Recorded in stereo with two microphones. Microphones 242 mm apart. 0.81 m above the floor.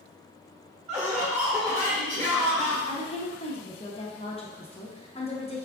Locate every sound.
0.9 s laughter: 30° right (ahead or behind), 1.6 m
2.9 s a woman speaking: 25° left (ahead or behind), 0.7 m